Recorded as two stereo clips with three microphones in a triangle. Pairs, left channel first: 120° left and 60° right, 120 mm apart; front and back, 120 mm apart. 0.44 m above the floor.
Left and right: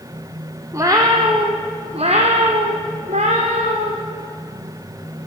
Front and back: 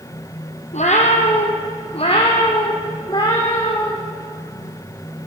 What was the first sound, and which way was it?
A cat meowing, 5° left.